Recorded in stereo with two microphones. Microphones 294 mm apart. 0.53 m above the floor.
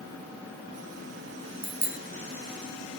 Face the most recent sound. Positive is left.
turn(degrees=-75)  # may be behind; listen again after turning